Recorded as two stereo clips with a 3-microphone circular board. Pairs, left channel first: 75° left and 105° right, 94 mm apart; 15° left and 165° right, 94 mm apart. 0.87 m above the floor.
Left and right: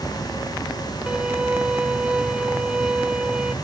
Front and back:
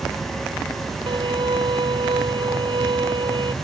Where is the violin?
175° left.